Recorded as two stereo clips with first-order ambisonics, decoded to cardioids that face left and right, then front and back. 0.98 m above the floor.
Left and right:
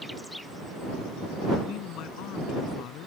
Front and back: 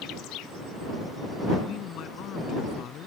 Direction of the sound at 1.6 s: 50° left.